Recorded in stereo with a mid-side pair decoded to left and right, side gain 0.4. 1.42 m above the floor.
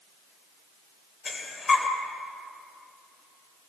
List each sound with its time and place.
1.2 s breathing: 45° left, 3 m